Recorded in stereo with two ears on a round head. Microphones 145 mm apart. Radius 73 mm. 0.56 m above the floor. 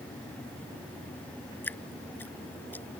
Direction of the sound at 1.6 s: 10° left (ahead or behind).